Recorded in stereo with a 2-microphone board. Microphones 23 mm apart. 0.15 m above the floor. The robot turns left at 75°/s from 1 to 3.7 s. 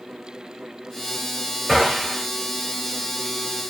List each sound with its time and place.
1.7 s a gunshot: 165° right, 2 m; by 2.3 s 150° left, 2 m